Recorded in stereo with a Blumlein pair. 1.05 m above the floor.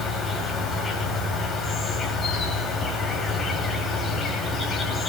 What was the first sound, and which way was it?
An insect, 20° left.